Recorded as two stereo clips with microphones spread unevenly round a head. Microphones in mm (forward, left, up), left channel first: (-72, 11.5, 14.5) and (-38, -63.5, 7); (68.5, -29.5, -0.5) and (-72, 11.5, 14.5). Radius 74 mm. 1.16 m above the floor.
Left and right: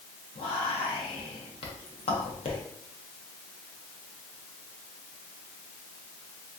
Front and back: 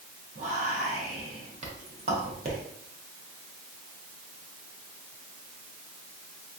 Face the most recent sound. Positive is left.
turn(degrees=115)